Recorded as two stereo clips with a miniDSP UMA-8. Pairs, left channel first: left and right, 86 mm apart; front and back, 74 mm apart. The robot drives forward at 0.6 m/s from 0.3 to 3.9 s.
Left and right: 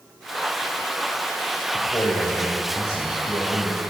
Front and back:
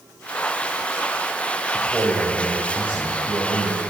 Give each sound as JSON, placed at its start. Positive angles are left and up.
{"t": 1.7, "sound": "a man speaking", "azimuth_deg": 105, "distance_m": 1.0}